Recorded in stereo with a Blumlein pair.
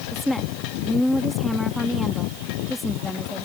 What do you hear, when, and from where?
0.1 s a woman speaking: straight ahead